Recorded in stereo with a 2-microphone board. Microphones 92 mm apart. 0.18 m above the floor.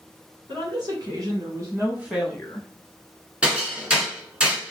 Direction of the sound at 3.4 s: 10° right (ahead or behind).